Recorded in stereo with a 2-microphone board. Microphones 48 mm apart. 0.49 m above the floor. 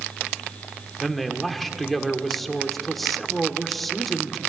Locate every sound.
1.0 s a man speaking: centre (ahead or behind), 1.3 m